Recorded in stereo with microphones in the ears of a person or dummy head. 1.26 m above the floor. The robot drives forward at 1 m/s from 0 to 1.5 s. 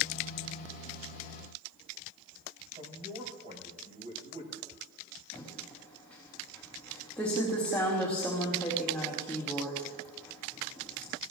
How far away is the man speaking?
About 6 m.